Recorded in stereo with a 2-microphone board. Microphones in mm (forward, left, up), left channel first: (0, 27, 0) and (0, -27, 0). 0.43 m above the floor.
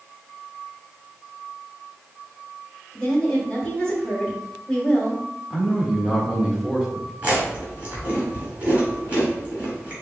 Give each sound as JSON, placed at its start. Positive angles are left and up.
{"t": 2.9, "sound": "a woman speaking", "side_deg": 10, "distance_m": 1.7}
{"t": 5.5, "sound": "a man speaking", "side_deg": -10, "distance_m": 1.3}
{"t": 7.2, "sound": "chewing", "side_deg": -20, "distance_m": 2.0}